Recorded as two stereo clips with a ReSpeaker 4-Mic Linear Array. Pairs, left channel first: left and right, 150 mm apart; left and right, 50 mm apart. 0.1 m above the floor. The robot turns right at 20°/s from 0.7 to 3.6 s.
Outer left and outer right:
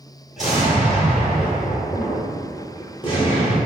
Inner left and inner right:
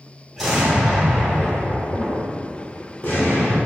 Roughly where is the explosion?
Ahead.